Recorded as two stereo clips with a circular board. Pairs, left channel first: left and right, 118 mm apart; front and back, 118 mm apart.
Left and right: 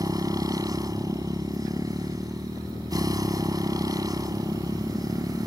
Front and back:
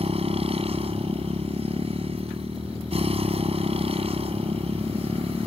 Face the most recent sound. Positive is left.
turn(degrees=-150)